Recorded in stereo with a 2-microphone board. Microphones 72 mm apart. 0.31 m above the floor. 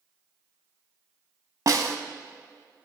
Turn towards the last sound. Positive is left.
turn(degrees=-55)  # may be behind; listen again after turning